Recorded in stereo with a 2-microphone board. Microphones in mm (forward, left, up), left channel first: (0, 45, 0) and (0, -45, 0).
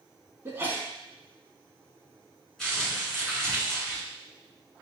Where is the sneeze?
25° right (ahead or behind), 1.1 m.